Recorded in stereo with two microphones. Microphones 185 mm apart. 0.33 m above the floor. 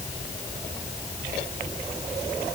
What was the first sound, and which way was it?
Only background noise.